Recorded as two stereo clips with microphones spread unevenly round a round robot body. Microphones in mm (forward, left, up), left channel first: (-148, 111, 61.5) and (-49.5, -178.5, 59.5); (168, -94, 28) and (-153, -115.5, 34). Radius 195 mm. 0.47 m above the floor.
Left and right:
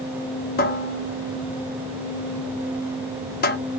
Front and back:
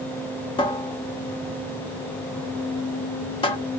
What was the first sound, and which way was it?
A cupboard door, 70° left.